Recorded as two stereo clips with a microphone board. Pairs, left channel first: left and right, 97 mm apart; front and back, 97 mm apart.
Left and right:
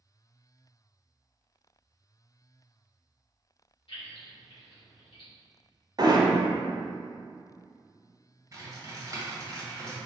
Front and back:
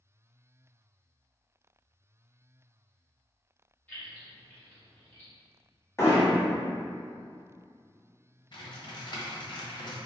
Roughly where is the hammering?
Ahead right.